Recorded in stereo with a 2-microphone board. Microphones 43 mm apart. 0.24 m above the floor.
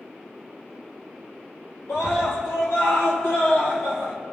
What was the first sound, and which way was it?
A scream, 75° left (ahead or behind).